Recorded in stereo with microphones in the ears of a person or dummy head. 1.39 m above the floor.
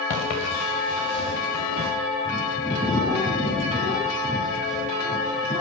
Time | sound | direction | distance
0.1 | footsteps | 40° left (ahead or behind) | 9 m
2.2 | a bird | 5° right (ahead or behind) | 6.5 m